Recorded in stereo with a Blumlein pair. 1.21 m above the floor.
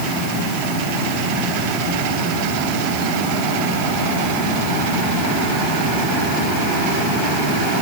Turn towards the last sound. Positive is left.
No sound to turn to.